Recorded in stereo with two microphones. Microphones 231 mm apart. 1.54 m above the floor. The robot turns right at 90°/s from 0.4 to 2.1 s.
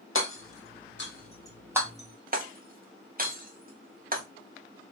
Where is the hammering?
60° left (ahead or behind), 1.0 m; by 4.2 s 40° right (ahead or behind), 1.0 m.